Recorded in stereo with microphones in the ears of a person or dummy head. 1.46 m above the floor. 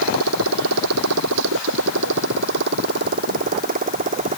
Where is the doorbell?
I don't hear a doorbell.